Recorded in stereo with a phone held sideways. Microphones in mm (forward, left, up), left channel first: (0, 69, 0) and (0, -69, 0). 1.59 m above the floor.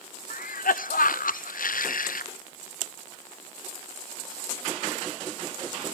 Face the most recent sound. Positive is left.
turn(degrees=80)